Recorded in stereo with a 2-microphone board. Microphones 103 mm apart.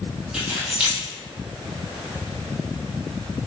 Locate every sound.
0.3 s keys jangling: 10° right (ahead or behind), 1.2 m